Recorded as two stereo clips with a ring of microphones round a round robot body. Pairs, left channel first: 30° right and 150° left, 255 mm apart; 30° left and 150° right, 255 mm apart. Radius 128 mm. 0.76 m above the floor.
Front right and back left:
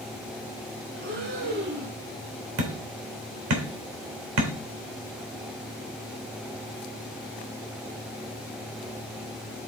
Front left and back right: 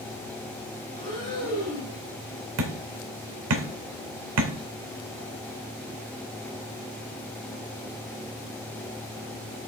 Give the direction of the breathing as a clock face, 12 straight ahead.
9 o'clock.